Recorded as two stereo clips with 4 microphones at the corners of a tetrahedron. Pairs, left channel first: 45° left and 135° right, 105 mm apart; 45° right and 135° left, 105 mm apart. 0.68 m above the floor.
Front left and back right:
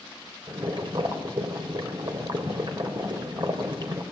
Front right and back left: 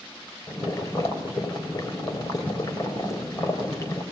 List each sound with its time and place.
0.5 s boiling: 100° right, 3.5 m